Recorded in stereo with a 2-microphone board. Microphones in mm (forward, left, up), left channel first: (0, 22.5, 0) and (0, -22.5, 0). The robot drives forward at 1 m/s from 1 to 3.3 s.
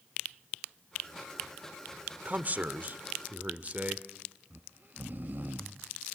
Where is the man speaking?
35° right (ahead or behind), 1.1 m.